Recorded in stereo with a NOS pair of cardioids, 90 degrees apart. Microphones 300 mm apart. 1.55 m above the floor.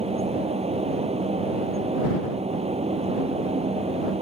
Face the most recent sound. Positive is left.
turn(degrees=-20)